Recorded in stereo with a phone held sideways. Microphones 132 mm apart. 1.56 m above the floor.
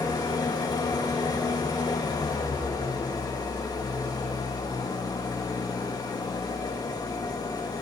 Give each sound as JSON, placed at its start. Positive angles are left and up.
{"t": 0.0, "sound": "an engine running", "side_deg": 30, "distance_m": 2.0}